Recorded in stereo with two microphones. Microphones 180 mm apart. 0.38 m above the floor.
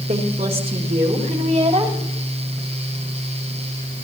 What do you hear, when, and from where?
0.1 s a woman speaking: 40° right (ahead or behind), 1.5 m; by 2.0 s 25° right (ahead or behind), 2.5 m